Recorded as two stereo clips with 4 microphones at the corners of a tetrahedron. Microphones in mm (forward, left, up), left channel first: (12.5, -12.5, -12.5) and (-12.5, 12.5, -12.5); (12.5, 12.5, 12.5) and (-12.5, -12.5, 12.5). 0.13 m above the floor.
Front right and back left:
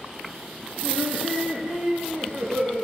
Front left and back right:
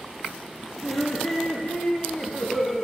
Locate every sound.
0.8 s laughter: 80° left, 4 m; by 2.8 s 130° left, 3 m